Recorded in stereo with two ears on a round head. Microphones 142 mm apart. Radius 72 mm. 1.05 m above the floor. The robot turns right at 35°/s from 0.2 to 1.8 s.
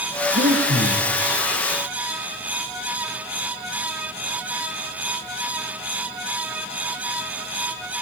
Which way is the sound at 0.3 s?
85° right.